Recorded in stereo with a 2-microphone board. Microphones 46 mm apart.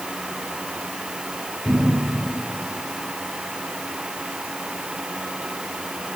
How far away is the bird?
No bird in this recording.